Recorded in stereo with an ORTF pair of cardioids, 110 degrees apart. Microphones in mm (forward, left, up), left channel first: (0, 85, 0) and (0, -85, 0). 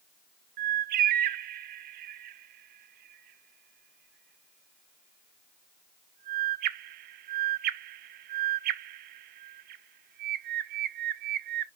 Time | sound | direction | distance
0.6 | a bird | 70° right | 0.6 m